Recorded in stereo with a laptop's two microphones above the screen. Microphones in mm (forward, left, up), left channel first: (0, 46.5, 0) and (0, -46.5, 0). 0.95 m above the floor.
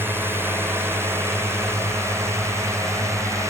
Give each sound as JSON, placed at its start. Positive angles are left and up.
{"t": 0.0, "sound": "a drone", "side_deg": -20}